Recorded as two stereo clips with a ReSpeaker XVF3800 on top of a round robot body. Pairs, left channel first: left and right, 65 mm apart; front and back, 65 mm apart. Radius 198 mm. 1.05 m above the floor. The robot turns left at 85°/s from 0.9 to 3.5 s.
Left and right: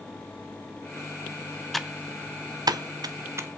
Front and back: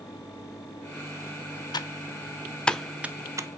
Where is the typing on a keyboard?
5° left, 0.7 m; by 3.5 s 145° right, 0.7 m.